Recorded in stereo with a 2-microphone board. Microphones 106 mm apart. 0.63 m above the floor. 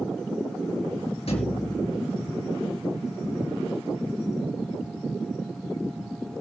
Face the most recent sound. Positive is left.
turn(degrees=60)  # may be behind; listen again after turning